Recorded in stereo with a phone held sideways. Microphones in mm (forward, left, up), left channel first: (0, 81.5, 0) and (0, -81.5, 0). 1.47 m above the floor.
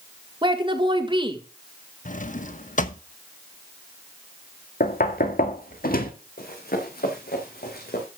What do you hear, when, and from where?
0.4 s a woman speaking: 30° right (ahead or behind), 1.8 m
2.0 s a drawer: 55° left (ahead or behind), 0.9 m
4.8 s knocking: 65° left (ahead or behind), 1.8 m
6.4 s running footsteps: 65° left (ahead or behind), 5 m; by 8.1 s 70° left (ahead or behind), 5 m